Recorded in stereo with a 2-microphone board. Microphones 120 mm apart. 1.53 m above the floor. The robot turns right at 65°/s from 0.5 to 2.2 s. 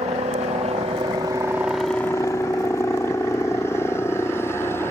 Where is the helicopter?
65° right (ahead or behind); by 4.9 s 20° left (ahead or behind).